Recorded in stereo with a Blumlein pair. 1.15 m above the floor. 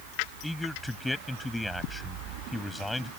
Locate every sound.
0.4 s a man speaking: straight ahead